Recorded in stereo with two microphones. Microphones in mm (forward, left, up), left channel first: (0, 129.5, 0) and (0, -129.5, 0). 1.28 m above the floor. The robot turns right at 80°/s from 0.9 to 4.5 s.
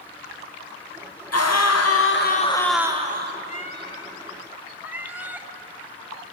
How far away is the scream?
About 0.8 m.